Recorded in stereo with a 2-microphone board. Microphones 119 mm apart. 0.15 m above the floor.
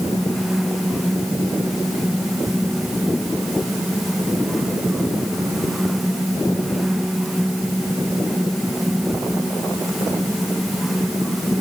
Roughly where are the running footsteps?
I don't hear running footsteps.